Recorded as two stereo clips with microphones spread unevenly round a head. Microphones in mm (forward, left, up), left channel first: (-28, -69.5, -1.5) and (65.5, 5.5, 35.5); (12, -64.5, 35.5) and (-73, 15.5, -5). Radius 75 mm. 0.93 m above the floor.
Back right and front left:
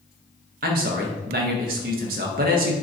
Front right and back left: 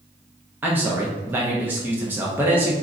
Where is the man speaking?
65° left, 0.6 m.